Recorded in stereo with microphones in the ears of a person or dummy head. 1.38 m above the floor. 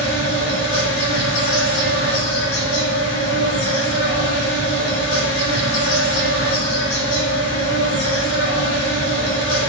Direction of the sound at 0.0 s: 65° left (ahead or behind).